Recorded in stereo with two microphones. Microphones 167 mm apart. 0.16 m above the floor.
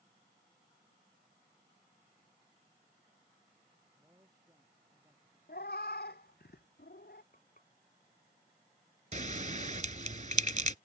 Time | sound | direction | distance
4.0 | a man speaking | 20° right (ahead or behind) | ?
5.5 | a cat meowing | 75° left (ahead or behind) | ?
7.3 | frying | 55° left (ahead or behind) | ?
9.1 | a bell | 50° right (ahead or behind) | ?